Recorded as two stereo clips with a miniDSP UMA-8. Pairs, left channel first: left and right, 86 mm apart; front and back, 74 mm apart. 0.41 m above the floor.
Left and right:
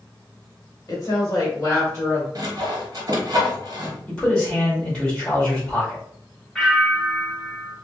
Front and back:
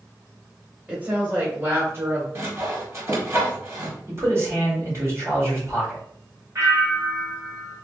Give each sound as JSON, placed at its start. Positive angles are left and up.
{"t": 0.9, "sound": "a woman speaking", "azimuth_deg": 115, "distance_m": 1.5}
{"t": 2.4, "sound": "sawing", "azimuth_deg": -130, "distance_m": 1.1}
{"t": 4.1, "sound": "a man speaking", "azimuth_deg": 165, "distance_m": 1.8}
{"t": 6.5, "sound": "a bell", "azimuth_deg": 165, "distance_m": 1.9}